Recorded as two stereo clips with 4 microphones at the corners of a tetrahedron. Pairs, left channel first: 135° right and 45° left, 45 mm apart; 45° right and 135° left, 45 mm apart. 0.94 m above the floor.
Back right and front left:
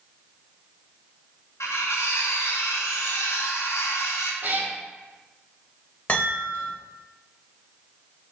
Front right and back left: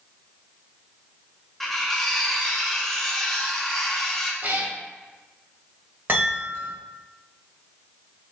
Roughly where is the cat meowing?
Left.